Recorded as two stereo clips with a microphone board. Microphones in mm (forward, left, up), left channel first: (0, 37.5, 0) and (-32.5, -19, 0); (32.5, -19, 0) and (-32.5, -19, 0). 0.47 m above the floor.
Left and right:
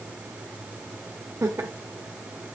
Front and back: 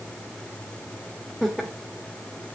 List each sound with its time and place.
1.4 s laughter: 85° right, 2.0 m